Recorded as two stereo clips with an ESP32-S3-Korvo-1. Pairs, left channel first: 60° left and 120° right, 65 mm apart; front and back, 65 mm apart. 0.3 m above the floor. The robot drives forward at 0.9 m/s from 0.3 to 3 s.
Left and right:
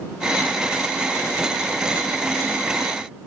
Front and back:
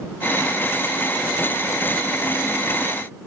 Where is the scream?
No scream in this recording.